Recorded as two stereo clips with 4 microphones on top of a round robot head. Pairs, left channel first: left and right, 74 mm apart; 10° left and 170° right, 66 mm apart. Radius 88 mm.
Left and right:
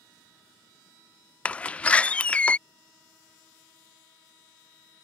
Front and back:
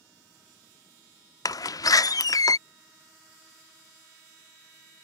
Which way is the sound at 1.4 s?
20° left.